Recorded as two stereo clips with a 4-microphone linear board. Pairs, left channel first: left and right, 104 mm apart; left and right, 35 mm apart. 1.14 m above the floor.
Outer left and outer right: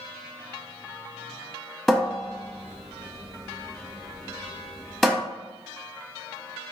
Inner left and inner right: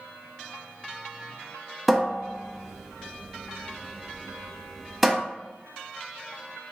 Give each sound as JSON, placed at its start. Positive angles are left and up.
{"t": 1.9, "sound": "a cupboard door", "side_deg": 5, "distance_m": 0.7}